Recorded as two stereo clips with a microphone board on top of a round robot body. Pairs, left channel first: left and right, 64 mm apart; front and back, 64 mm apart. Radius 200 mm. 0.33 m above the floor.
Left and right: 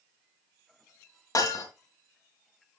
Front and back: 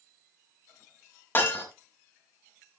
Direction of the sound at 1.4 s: 55° left.